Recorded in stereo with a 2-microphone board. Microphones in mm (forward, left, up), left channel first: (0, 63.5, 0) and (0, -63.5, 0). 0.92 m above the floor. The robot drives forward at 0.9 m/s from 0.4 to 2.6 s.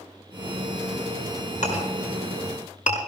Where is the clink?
65° left (ahead or behind), 5 m; by 3.0 s 75° left (ahead or behind), 5 m.